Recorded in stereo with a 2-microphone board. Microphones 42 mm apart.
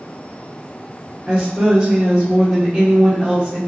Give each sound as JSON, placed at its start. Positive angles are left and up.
{"t": 1.3, "sound": "a woman speaking", "side_deg": -5, "distance_m": 1.5}